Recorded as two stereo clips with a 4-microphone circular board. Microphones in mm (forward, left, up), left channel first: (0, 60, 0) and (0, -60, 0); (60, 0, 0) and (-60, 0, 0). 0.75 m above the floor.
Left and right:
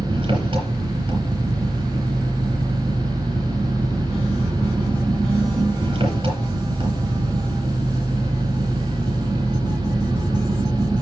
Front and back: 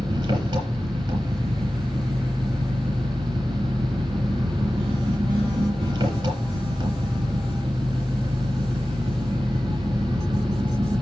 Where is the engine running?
135° right, 5.5 m.